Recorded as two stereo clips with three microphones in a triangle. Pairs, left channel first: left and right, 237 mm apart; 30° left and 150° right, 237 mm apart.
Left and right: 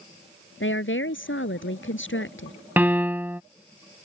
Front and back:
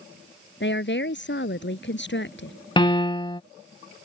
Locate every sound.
0.6 s a woman speaking: 65° left
2.8 s a piano: 15° right